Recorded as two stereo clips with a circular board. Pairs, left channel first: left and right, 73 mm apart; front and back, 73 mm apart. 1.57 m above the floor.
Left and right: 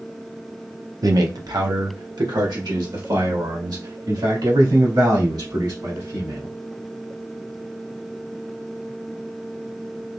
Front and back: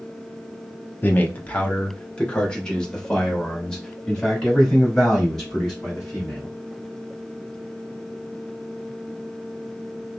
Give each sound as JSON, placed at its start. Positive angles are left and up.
{"t": 1.0, "sound": "a man speaking", "azimuth_deg": -60, "distance_m": 0.6}